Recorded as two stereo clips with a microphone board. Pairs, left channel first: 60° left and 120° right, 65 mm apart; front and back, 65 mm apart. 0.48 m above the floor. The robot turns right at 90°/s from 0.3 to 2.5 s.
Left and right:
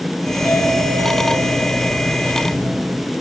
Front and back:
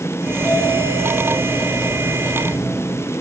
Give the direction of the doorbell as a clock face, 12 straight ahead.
12 o'clock.